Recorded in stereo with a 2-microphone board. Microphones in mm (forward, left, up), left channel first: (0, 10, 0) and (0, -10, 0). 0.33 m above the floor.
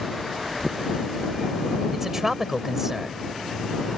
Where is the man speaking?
20° right (ahead or behind).